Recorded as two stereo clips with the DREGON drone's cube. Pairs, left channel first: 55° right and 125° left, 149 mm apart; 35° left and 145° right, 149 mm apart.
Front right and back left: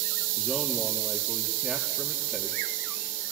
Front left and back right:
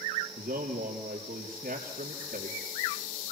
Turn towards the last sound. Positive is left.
turn(degrees=-145)